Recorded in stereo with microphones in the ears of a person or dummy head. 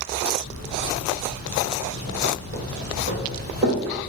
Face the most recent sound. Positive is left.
turn(degrees=-30)  # may be behind; listen again after turning